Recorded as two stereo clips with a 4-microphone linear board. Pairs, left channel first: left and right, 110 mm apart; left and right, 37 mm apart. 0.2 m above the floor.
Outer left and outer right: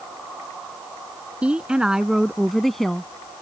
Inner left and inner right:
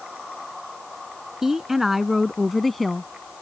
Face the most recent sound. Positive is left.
turn(degrees=5)  # may be behind; listen again after turning